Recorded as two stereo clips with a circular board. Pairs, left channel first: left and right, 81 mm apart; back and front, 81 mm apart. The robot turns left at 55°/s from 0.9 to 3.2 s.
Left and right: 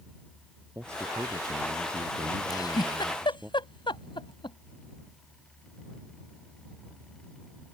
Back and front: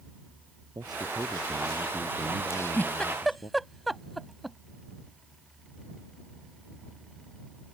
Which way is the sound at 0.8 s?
35° right.